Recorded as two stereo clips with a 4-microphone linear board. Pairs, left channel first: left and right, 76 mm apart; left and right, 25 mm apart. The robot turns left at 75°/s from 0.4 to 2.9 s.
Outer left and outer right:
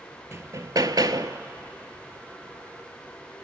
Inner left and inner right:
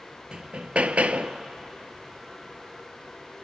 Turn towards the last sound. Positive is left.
turn(degrees=125)